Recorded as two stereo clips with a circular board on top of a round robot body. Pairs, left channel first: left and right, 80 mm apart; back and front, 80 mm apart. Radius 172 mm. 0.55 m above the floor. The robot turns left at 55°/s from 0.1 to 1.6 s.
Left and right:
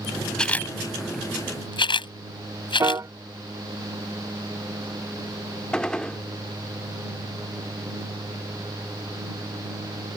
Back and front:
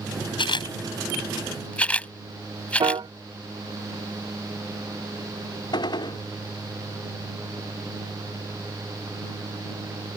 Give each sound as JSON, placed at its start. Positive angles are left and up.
{"t": 0.4, "sound": "a camera shutter", "azimuth_deg": 170}
{"t": 2.8, "sound": "a piano", "azimuth_deg": -35}
{"t": 5.7, "sound": "a gunshot", "azimuth_deg": 170}